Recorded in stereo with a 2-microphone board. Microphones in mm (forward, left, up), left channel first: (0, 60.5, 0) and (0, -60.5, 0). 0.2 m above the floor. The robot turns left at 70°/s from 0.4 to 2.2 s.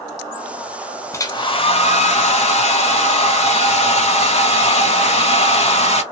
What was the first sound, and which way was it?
A hair dryer, 150° left.